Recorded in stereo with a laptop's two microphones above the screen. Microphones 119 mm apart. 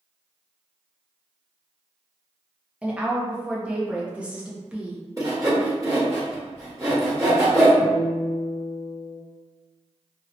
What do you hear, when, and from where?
2.8 s a woman speaking: 10° right (ahead or behind), 0.7 m
5.2 s sawing: 25° right (ahead or behind), 1.4 m
7.8 s a guitar: 20° right (ahead or behind), 0.6 m